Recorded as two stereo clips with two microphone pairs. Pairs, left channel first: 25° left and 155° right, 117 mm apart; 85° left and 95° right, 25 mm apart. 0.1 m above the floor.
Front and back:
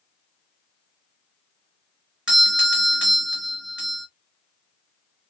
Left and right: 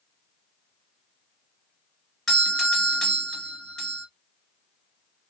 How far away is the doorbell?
About 1.6 m.